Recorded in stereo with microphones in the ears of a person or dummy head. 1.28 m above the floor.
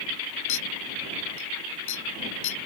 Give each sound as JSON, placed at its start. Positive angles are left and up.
{"t": 0.5, "sound": "a clink", "side_deg": 65}